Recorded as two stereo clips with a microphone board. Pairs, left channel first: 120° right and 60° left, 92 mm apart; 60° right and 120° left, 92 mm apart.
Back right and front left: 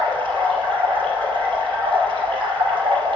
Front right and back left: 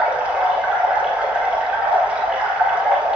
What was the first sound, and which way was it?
Running water, 40° left.